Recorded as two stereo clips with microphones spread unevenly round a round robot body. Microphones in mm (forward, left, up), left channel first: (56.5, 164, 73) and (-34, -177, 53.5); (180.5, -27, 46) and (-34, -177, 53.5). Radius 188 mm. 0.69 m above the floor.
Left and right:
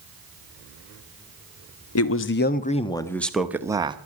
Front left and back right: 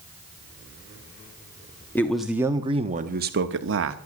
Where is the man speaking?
115° left, 1.0 m; by 4.0 s straight behind, 1.3 m.